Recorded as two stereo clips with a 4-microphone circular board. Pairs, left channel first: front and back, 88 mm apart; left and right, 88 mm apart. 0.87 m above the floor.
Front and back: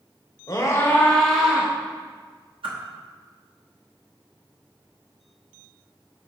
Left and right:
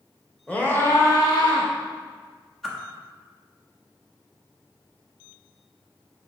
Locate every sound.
0.5 s a scream: 25° left, 1.2 m; by 1.7 s 105° left, 1.5 m
2.6 s a whoosh: 175° left, 1.1 m